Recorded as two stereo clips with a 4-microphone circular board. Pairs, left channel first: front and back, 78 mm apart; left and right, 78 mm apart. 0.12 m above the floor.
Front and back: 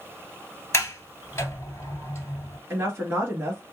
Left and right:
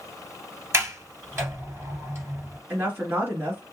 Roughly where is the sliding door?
Ahead right.